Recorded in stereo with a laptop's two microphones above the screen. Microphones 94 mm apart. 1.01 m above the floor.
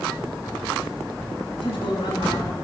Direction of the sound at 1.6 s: 80° left.